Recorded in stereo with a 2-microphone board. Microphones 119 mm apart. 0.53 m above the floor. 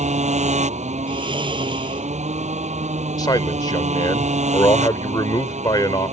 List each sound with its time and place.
0.0 s a motorcycle: 75° right (ahead or behind)
1.1 s snoring: 40° right (ahead or behind)
3.2 s a man speaking: 35° left (ahead or behind)